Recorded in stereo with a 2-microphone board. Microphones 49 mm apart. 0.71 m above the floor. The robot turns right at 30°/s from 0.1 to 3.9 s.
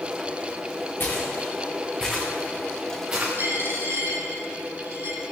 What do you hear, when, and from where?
1.0 s footsteps: 45° left (ahead or behind), 4 m; by 3.3 s 35° right (ahead or behind), 4.5 m
3.4 s a dropped coin: 45° right (ahead or behind), 4 m; by 5.2 s 60° right (ahead or behind), 4 m